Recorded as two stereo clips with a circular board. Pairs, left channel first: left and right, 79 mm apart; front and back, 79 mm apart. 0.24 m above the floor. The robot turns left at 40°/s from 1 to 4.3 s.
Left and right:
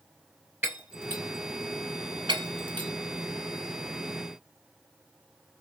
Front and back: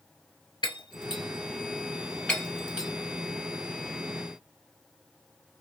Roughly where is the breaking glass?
Ahead right.